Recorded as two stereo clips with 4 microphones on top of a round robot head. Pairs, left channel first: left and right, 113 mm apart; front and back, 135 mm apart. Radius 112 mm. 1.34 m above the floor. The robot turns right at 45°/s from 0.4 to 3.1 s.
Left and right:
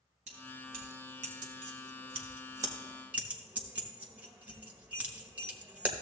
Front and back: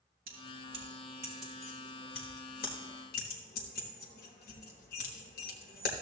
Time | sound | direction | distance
0.3 | keys jangling | 135° right | 1.1 m